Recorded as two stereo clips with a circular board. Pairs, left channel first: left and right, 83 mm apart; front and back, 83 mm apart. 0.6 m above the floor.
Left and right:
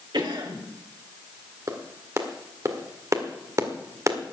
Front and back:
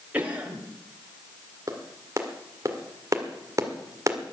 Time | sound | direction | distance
0.1 | a cough | 110° right | 3.5 m
1.7 | a clap | 135° right | 1.8 m